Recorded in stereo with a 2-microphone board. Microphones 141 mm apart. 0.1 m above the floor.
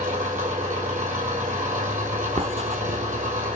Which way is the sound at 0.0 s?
65° right (ahead or behind).